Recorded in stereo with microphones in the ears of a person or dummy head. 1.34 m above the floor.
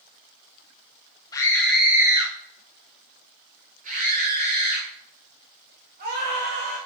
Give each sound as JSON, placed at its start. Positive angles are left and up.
{"t": 1.3, "sound": "a scream", "side_deg": 15, "distance_m": 0.9}